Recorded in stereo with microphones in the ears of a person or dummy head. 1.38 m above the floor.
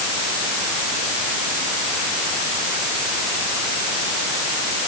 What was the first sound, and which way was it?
Only background noise.